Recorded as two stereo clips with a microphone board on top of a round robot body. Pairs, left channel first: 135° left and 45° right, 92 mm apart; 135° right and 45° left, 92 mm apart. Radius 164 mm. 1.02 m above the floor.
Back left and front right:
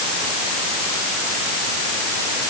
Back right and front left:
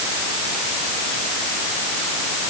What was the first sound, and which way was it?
Only background noise.